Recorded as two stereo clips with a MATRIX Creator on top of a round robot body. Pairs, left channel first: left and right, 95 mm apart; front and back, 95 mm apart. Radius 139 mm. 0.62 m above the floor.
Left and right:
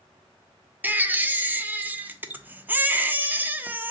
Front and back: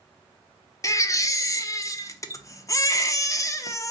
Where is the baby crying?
30° right, 0.6 m.